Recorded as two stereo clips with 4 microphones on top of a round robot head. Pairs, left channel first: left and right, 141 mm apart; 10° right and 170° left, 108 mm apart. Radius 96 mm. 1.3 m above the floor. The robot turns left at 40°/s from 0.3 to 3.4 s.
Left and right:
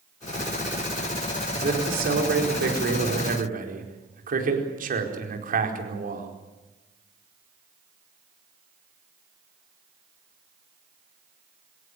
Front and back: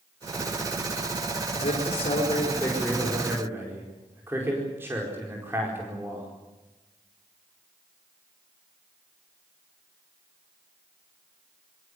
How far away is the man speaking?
About 4.5 m.